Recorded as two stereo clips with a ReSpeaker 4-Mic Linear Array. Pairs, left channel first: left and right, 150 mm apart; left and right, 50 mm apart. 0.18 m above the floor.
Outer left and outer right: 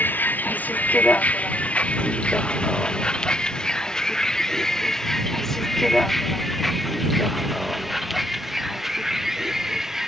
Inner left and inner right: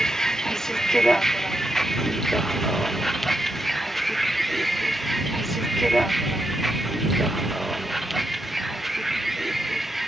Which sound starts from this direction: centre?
A vehicle, at 0.0 s.